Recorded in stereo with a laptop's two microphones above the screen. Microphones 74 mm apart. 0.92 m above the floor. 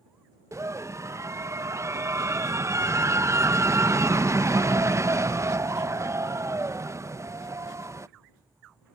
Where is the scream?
40° right (ahead or behind).